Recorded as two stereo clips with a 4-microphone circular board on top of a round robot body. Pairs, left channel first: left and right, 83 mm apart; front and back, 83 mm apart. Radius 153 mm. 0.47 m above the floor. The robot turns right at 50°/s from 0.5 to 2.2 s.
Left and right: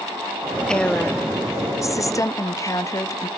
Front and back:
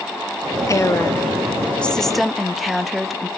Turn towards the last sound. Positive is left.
turn(degrees=90)